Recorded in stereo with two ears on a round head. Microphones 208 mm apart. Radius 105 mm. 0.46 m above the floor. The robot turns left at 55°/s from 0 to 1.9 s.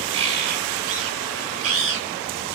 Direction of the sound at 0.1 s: 25° right.